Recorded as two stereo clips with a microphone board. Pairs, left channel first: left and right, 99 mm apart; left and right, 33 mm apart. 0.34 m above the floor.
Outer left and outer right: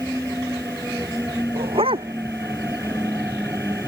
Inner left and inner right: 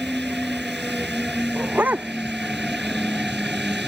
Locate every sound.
1.6 s a dog barking: 60° right (ahead or behind)